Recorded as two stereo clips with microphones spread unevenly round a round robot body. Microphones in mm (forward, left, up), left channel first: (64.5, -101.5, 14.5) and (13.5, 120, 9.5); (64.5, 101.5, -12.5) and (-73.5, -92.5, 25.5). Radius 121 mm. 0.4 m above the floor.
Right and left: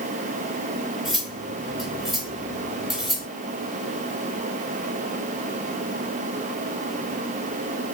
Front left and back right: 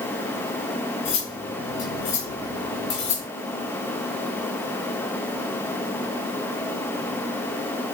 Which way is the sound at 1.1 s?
15° left.